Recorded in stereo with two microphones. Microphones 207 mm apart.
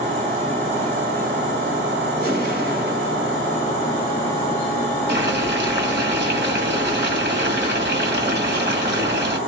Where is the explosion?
50° right (ahead or behind), 1.8 m.